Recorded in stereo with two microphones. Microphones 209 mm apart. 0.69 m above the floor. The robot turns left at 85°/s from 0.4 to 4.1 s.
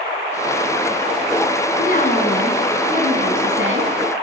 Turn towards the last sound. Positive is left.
turn(degrees=-140)